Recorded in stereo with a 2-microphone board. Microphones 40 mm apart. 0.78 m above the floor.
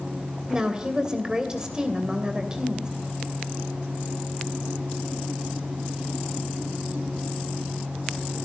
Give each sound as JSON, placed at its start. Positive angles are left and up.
{"t": 0.5, "sound": "a woman speaking", "side_deg": -15, "distance_m": 3.0}